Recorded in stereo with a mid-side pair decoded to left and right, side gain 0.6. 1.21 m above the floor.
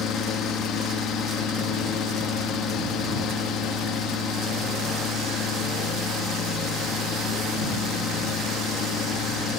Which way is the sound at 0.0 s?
60° left.